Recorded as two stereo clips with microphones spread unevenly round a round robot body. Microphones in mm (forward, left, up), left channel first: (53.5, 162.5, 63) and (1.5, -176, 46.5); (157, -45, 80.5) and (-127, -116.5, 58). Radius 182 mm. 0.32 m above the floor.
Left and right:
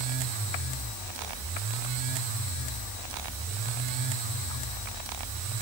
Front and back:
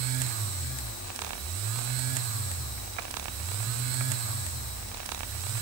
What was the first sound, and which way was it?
Only background noise.